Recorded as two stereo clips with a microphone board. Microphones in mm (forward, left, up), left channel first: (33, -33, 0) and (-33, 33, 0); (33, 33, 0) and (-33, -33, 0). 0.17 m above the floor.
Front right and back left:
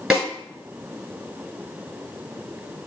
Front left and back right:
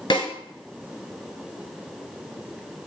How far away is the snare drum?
About 1.6 m.